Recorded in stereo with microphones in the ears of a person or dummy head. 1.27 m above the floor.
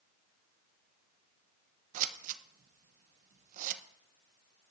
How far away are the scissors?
About 0.6 m.